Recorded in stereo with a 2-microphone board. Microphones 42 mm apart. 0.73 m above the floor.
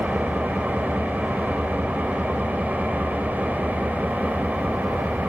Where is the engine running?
50° right (ahead or behind), 2.5 m.